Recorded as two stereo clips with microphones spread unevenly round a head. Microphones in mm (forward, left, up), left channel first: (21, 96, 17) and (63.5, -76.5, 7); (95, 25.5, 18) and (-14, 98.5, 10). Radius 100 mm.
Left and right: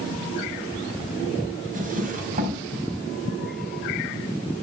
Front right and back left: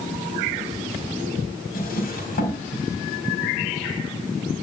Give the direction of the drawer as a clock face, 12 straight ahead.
1 o'clock.